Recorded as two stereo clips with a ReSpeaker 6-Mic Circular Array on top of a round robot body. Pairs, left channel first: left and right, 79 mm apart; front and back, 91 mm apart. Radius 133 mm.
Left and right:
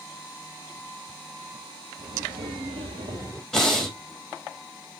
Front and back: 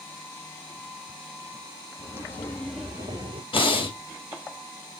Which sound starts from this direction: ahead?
Breathing, at 3.5 s.